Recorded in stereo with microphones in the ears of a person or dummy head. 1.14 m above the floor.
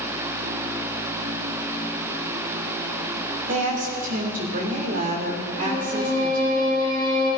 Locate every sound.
3.5 s a woman speaking: 40° right (ahead or behind), 2.5 m
5.6 s a violin: 55° right (ahead or behind), 6 m